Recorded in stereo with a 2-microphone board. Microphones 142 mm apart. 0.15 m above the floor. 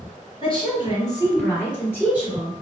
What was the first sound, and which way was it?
A woman speaking, 40° left (ahead or behind).